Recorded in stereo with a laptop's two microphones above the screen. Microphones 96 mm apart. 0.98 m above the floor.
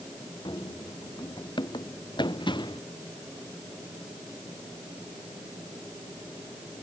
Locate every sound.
0.5 s running footsteps: 55° left (ahead or behind)